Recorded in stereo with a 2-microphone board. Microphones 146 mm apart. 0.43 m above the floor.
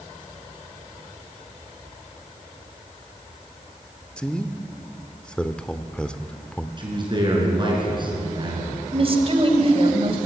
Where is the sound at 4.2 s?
5° left (ahead or behind), 0.9 m.